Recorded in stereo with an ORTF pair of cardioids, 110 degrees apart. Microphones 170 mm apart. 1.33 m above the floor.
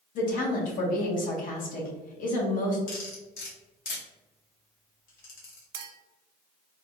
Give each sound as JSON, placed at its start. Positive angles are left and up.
{"t": 0.1, "sound": "a woman speaking", "azimuth_deg": 55, "distance_m": 1.1}
{"t": 2.9, "sound": "cutlery clinking", "azimuth_deg": 65, "distance_m": 1.5}
{"t": 5.7, "sound": "a clink", "azimuth_deg": -70, "distance_m": 0.6}